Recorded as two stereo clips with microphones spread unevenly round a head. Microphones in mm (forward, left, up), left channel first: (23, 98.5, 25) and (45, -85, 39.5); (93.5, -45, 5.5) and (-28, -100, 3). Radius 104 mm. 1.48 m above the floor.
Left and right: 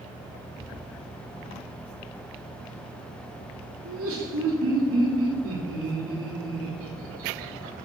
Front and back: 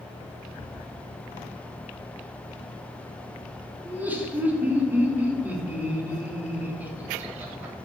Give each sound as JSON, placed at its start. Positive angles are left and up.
{"t": 3.9, "sound": "laughter", "azimuth_deg": -80, "distance_m": 3.5}